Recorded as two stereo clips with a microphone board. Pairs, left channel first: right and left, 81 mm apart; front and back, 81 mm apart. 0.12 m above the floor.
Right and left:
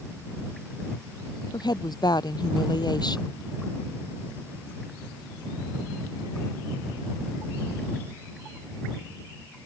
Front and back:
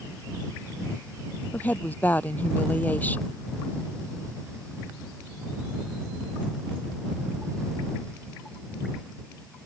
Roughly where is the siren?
No siren in this recording.